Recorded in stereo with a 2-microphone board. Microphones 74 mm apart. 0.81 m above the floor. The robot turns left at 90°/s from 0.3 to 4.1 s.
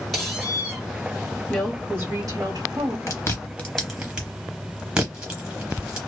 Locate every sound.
0.1 s a squeak: 5° left, 1.2 m; by 0.8 s 45° right, 1.2 m
1.5 s a woman speaking: 10° left, 1.0 m; by 3.0 s 125° right, 1.0 m
3.1 s chewing: 45° left (ahead or behind), 0.8 m; by 6.0 s 10° right (ahead or behind), 0.8 m